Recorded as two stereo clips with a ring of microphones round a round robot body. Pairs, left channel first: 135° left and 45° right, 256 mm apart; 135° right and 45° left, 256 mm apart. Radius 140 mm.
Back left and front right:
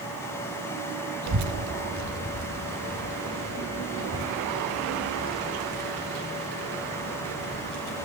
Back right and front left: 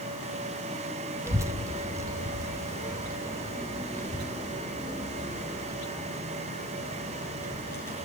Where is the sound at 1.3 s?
35° right, 0.6 m.